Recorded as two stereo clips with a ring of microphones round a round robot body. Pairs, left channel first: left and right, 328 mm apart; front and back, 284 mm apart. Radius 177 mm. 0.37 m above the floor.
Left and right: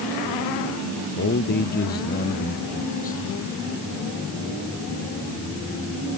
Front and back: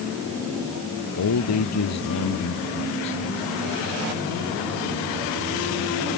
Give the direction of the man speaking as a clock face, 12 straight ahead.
11 o'clock.